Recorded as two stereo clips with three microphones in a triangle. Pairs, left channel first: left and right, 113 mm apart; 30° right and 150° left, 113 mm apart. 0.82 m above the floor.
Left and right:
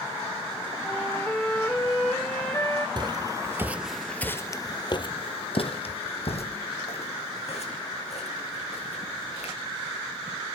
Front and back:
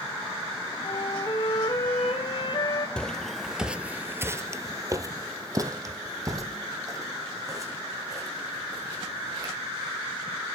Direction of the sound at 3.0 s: 110° right.